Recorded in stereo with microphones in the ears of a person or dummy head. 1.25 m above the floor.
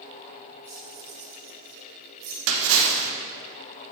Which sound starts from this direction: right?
A splash, at 2.5 s.